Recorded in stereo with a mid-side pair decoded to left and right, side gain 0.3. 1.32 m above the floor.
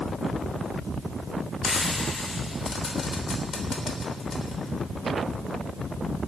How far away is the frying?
About 3 m.